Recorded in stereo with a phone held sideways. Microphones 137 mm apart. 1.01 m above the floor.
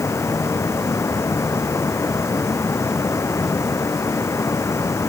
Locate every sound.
0.0 s a fan: 20° left (ahead or behind)